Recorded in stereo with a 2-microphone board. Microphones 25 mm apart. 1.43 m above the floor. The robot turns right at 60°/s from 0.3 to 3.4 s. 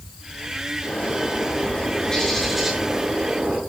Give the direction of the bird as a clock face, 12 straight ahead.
9 o'clock.